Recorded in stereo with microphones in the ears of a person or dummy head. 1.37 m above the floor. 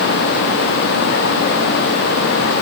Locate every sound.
Only background noise.